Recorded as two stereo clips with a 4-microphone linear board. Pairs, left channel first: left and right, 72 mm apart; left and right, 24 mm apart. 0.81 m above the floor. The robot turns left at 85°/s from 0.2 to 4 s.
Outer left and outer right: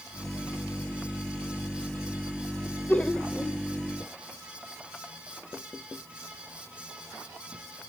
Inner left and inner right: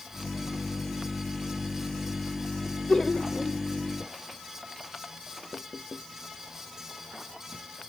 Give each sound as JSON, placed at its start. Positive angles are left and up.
{"t": 2.7, "sound": "laughter", "side_deg": 40, "distance_m": 0.7}